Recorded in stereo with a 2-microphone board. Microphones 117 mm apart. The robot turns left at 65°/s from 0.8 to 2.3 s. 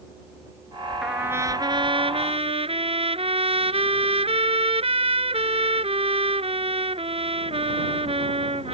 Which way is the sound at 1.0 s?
5° right.